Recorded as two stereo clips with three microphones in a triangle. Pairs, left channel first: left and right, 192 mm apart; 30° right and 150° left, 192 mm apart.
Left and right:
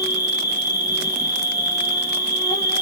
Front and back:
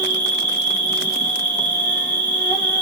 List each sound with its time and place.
0.0 s an insect: 40° left, 1.8 m